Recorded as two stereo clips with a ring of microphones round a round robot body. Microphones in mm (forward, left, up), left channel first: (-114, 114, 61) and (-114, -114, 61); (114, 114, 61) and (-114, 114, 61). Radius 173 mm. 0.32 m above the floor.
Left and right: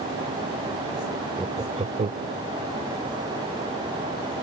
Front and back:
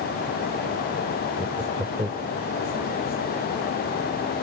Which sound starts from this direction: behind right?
Laughter, at 1.4 s.